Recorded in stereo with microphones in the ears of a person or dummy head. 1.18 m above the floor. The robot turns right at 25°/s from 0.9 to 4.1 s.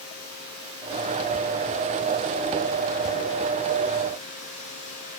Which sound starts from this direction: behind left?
Running water, at 0.0 s.